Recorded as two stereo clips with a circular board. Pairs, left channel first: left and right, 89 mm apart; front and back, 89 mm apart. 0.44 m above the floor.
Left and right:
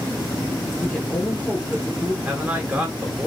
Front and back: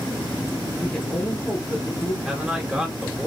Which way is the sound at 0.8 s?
60° left.